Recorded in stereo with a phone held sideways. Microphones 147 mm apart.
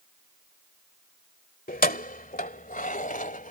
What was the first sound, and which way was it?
Keys jangling, 80° left.